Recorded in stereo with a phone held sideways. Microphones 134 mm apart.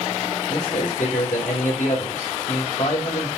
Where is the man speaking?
75° left (ahead or behind), 4 m.